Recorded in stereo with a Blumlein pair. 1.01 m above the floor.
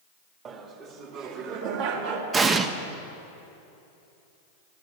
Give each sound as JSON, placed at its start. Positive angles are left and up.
{"t": 0.5, "sound": "laughter", "azimuth_deg": -25, "distance_m": 2.0}
{"t": 2.3, "sound": "an explosion", "azimuth_deg": -20, "distance_m": 0.9}